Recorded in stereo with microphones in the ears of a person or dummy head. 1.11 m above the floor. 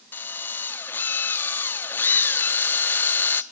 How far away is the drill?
About 0.7 m.